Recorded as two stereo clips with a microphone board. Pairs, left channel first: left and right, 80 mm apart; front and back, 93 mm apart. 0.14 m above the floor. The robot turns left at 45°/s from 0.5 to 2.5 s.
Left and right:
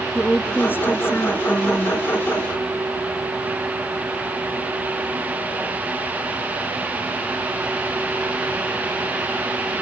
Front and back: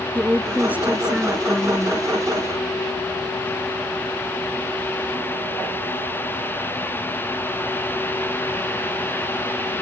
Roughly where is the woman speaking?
Behind left.